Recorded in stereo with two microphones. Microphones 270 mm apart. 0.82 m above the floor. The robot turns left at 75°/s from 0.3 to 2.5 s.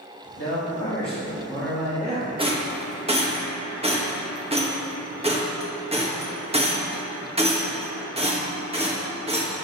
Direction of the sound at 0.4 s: 100° left.